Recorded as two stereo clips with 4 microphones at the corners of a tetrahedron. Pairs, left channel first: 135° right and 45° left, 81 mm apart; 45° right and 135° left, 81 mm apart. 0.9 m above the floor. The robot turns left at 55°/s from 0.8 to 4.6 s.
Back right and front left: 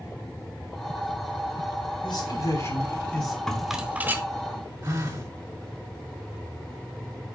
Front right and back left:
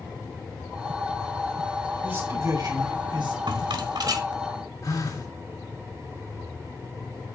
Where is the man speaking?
150° right, 4 m; by 3.4 s 135° left, 4 m.